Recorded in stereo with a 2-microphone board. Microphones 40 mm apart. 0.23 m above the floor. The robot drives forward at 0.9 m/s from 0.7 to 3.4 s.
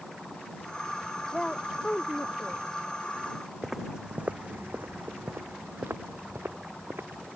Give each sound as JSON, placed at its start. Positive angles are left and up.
{"t": 1.3, "sound": "a woman speaking", "side_deg": 10}
{"t": 3.6, "sound": "footsteps", "side_deg": -10}